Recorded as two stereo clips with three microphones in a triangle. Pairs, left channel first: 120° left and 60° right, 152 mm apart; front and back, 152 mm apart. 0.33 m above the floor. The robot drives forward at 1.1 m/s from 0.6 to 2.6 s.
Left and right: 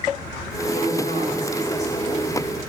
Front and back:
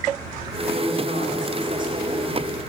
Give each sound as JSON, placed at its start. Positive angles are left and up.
{"t": 0.7, "sound": "a woman speaking", "azimuth_deg": 155, "distance_m": 4.0}